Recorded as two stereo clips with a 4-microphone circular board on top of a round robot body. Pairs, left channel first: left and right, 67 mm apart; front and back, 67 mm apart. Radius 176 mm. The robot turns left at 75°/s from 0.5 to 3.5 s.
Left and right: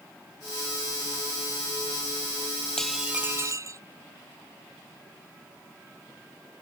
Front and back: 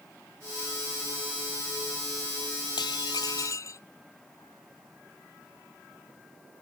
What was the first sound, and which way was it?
Dishes clattering, 10° left.